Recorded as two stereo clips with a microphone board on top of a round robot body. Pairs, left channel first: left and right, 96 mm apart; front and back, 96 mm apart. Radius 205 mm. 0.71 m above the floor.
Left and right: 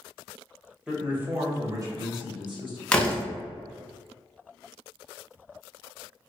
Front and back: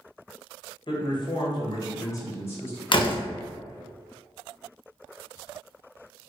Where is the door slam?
10° left, 0.7 m.